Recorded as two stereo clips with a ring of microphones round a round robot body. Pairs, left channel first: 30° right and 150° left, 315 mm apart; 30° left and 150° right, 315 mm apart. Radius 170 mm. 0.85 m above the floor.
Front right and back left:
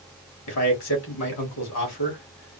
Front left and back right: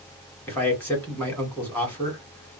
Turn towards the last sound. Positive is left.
turn(degrees=-55)